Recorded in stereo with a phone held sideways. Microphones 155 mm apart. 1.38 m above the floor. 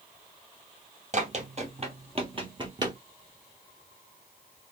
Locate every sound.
1.1 s running footsteps: 50° right (ahead or behind), 2.0 m; by 3.0 s 25° right (ahead or behind), 1.6 m